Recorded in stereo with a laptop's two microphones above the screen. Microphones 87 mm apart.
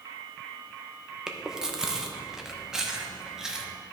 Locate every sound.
1.3 s chewing: 5° right (ahead or behind), 0.9 m